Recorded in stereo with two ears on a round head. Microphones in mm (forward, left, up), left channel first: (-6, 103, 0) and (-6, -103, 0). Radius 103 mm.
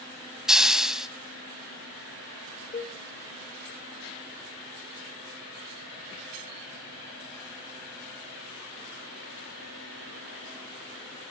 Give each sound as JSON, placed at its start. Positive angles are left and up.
{"t": 0.5, "sound": "a hiss", "side_deg": -5, "distance_m": 1.0}
{"t": 2.7, "sound": "a cowbell", "side_deg": 30, "distance_m": 1.6}